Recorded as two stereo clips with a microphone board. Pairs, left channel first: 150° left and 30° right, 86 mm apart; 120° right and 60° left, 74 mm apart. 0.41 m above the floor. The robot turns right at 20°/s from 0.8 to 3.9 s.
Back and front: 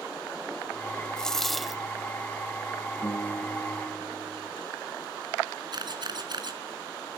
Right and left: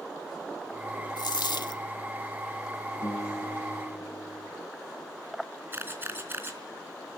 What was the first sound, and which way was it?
A dropped coin, 130° right.